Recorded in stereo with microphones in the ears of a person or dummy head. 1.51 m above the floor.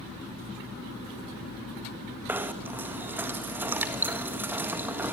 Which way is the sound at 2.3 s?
10° right (ahead or behind).